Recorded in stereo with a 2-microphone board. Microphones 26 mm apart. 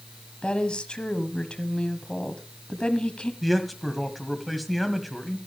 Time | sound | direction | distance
0.4 | a woman speaking | 40° left (ahead or behind) | 1.3 m
3.4 | a man speaking | centre (ahead or behind) | 1.7 m